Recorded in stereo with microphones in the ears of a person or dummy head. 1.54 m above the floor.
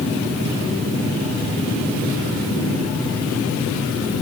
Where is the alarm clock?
I don't hear an alarm clock.